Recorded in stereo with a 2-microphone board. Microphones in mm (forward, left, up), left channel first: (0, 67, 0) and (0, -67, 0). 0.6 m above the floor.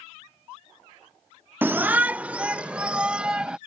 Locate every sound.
1.6 s a shout: 15° right (ahead or behind); by 3.6 s 5° right (ahead or behind)